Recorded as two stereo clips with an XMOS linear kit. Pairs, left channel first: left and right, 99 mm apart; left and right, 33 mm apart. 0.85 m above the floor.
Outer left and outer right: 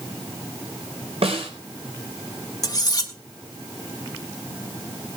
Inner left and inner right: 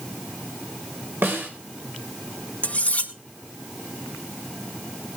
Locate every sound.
1.2 s a snare drum: 80° right, 3.5 m
2.6 s cutlery clinking: 40° left (ahead or behind), 1.8 m